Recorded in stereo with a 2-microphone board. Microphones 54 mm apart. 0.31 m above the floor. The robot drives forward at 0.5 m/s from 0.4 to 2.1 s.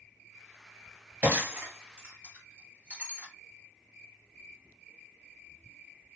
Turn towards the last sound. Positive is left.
turn(degrees=-25)  # may be behind; listen again after turning